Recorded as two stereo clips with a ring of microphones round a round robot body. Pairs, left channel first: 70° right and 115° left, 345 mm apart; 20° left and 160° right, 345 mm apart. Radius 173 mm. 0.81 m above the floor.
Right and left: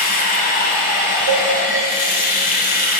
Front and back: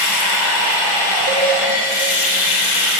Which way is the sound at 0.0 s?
5° right.